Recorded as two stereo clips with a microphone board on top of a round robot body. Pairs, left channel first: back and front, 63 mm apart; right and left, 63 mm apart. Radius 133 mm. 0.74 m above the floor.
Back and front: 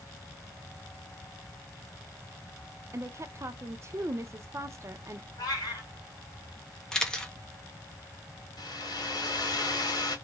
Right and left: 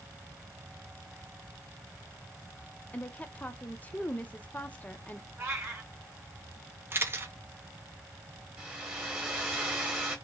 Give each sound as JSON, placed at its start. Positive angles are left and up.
{"t": 2.9, "sound": "a woman speaking", "azimuth_deg": -30, "distance_m": 0.6}
{"t": 5.4, "sound": "a cat meowing", "azimuth_deg": 150, "distance_m": 1.4}
{"t": 6.9, "sound": "a camera shutter", "azimuth_deg": 110, "distance_m": 1.2}
{"t": 8.6, "sound": "a hair dryer", "azimuth_deg": 165, "distance_m": 1.3}